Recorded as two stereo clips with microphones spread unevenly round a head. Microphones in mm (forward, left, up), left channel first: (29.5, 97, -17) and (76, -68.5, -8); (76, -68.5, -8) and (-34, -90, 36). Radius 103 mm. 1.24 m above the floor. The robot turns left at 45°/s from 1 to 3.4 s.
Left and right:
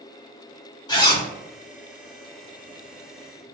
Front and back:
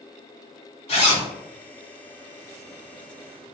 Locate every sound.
0.9 s a zipper: 55° left, 1.2 m; by 1.3 s 45° left, 1.2 m